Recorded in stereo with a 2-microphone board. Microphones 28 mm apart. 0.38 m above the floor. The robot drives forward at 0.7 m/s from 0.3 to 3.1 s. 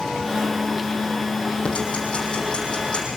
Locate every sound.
1.6 s ticking: 40° left (ahead or behind), 6 m; by 3.1 s 35° left (ahead or behind), 7 m